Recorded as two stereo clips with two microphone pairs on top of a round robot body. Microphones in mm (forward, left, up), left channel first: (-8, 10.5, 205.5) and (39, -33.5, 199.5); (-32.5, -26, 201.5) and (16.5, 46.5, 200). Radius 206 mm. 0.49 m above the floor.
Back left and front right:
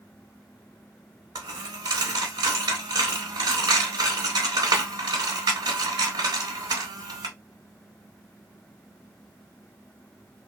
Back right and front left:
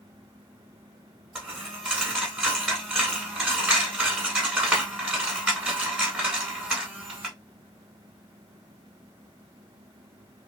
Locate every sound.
1.4 s a dropped coin: 30° right, 0.7 m